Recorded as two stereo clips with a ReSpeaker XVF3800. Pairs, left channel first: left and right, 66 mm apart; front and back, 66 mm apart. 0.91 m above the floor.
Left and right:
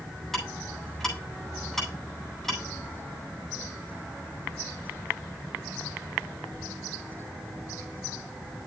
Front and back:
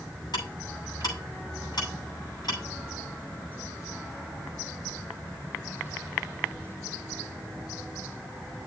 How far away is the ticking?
About 9 m.